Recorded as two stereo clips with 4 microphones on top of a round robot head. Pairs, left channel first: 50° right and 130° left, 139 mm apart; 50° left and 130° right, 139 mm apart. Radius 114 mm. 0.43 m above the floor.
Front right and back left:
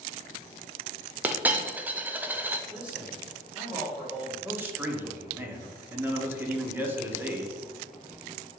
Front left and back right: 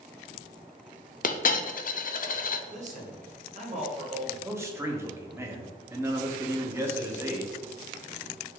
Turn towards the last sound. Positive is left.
turn(degrees=-175)